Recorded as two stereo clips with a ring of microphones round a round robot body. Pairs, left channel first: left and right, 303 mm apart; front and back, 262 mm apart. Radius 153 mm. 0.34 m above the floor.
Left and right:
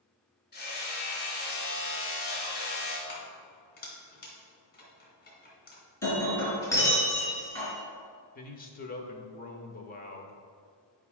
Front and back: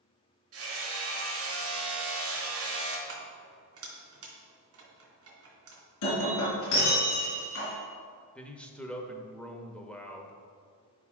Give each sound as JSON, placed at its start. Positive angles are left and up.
{"t": 0.5, "sound": "hammering", "azimuth_deg": 150, "distance_m": 3.0}
{"t": 3.1, "sound": "keys jangling", "azimuth_deg": 150, "distance_m": 2.5}
{"t": 6.0, "sound": "breaking glass", "azimuth_deg": 10, "distance_m": 3.5}
{"t": 8.3, "sound": "a man speaking", "azimuth_deg": 80, "distance_m": 1.0}